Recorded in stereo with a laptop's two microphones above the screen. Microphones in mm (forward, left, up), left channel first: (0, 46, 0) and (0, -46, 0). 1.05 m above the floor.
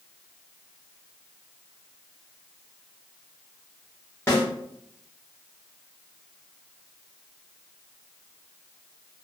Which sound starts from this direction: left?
A snare drum, at 4.3 s.